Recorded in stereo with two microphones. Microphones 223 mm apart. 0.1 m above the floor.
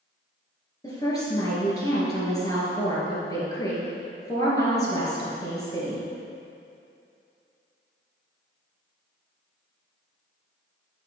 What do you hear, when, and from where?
0.8 s a woman speaking: 15° left (ahead or behind), 1.9 m